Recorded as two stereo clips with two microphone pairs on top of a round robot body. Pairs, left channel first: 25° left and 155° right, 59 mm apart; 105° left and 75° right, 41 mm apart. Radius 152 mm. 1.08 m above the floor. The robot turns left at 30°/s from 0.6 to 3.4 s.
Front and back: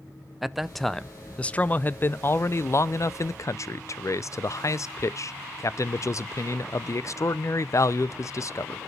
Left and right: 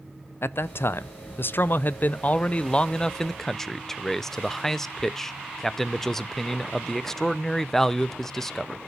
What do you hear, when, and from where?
0.4 s a man speaking: 105° left, 0.5 m; by 8.8 s 20° left, 0.5 m